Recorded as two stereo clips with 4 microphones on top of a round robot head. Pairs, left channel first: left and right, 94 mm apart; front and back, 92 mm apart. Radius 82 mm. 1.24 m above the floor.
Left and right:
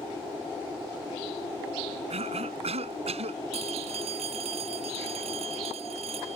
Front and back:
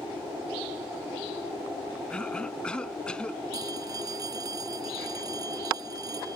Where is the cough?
80° right.